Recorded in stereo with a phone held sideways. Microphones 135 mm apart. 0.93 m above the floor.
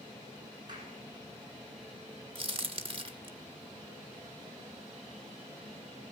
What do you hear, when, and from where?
0.7 s a clap: 30° right (ahead or behind), 9 m
2.4 s a crack: 40° right (ahead or behind), 1.5 m